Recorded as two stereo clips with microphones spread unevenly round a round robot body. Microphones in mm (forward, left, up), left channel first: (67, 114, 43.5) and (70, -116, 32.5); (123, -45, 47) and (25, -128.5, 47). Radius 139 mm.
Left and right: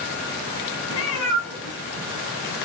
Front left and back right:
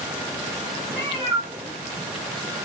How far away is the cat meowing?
About 3.5 m.